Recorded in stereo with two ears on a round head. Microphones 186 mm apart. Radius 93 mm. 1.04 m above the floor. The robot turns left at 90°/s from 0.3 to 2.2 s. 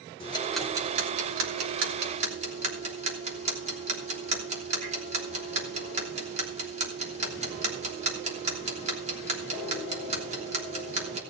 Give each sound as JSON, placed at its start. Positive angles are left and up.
{"t": 0.2, "sound": "ticking", "side_deg": 25, "distance_m": 3.0}